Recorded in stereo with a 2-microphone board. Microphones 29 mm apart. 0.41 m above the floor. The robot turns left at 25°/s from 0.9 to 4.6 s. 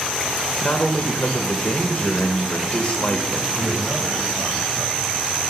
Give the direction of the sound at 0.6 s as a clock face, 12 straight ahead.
8 o'clock.